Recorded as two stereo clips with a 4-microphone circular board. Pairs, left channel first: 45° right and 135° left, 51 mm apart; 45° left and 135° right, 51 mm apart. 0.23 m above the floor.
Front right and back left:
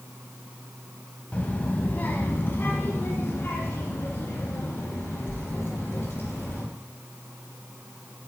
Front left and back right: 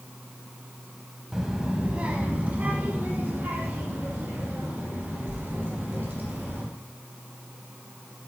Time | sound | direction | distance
1.3 | a child speaking | 65° right | 0.8 m